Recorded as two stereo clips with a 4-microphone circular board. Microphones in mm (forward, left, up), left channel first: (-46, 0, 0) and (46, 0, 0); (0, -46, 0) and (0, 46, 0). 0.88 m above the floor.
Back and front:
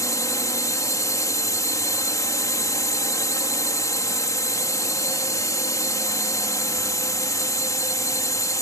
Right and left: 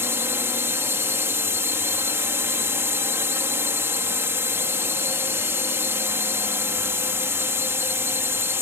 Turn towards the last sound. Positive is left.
turn(degrees=145)